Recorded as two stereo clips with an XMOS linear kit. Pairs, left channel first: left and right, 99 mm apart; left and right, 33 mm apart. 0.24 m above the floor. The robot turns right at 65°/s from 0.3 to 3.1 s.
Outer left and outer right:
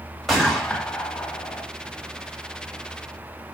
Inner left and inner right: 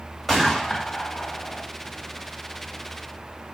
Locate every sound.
0.3 s a gunshot: centre (ahead or behind), 1.5 m; by 1.6 s 30° left (ahead or behind), 1.5 m